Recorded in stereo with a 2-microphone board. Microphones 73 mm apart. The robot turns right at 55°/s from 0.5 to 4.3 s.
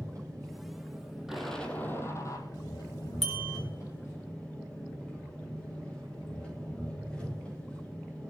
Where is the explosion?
5° right, 2.5 m; by 2.5 s 60° left, 2.5 m.